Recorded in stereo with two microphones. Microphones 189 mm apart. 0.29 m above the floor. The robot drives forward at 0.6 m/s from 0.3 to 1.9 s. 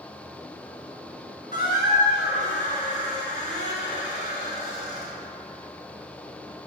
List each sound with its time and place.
1.5 s a squeak: 50° left (ahead or behind), 1.7 m; by 5.1 s 40° left (ahead or behind), 1.8 m